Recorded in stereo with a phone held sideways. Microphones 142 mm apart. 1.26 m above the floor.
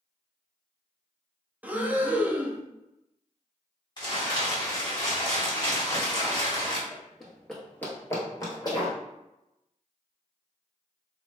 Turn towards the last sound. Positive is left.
turn(degrees=35)  # may be behind; listen again after turning